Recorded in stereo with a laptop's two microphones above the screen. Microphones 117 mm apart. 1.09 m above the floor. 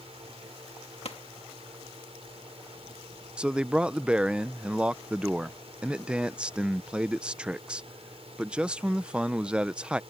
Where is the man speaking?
10° right (ahead or behind).